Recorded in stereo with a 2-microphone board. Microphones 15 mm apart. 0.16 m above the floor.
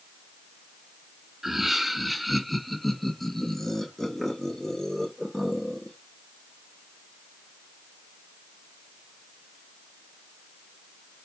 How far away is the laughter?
About 1.5 m.